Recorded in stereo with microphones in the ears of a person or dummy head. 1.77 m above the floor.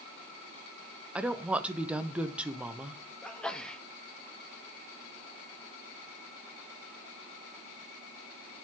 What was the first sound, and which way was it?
A woman speaking, 5° right (ahead or behind).